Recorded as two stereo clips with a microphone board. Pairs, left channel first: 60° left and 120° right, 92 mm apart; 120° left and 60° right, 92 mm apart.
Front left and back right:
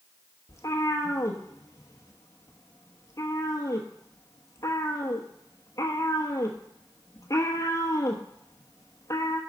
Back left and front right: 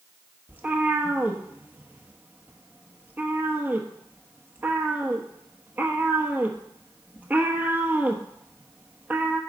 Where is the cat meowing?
10° left, 1.0 m.